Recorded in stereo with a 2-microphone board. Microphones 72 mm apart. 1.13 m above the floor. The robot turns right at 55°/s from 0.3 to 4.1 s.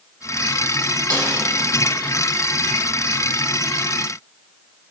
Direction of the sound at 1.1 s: 75° right (ahead or behind).